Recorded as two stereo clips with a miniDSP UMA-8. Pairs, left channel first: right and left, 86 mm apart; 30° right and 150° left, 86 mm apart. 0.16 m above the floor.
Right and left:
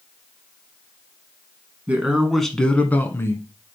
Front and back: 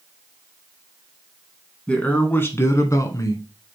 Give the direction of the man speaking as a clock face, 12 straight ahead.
11 o'clock.